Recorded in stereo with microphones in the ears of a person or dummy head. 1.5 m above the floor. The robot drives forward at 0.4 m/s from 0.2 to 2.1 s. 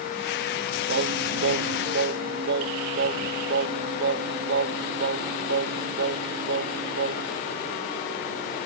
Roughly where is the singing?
Right.